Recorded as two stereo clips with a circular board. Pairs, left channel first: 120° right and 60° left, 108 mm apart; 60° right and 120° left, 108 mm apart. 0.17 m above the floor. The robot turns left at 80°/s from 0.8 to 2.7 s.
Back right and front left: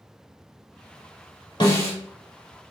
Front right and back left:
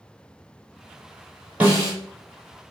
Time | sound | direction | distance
1.6 | a snare drum | 165° right | 1.6 m